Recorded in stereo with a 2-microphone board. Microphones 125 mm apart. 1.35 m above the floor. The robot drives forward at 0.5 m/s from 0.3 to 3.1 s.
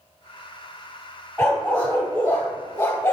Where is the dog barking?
15° left (ahead or behind), 3 m; by 3.1 s 25° left (ahead or behind), 2 m.